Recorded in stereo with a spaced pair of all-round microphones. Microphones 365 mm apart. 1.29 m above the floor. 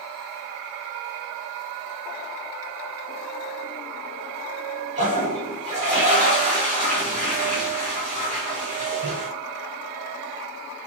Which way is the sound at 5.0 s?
20° right (ahead or behind).